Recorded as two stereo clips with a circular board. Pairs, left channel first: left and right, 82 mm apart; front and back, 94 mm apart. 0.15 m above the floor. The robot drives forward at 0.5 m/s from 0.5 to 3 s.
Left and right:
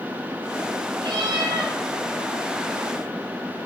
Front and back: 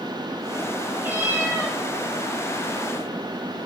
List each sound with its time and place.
1.0 s a cat meowing: 110° right, 3 m; by 1.8 s 120° right, 3 m